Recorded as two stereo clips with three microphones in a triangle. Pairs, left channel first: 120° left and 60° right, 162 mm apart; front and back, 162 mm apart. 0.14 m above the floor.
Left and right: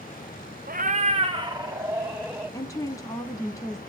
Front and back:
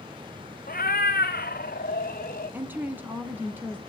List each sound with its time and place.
0.7 s a cat meowing: 30° right, 0.9 m; by 2.6 s 25° left, 2.5 m
2.5 s a woman speaking: 125° left, 1.1 m